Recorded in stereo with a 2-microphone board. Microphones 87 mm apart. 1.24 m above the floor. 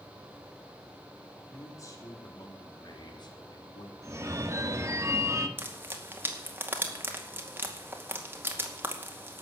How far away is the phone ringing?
About 1.5 m.